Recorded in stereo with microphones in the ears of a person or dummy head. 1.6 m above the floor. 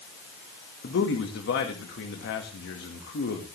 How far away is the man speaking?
About 2 m.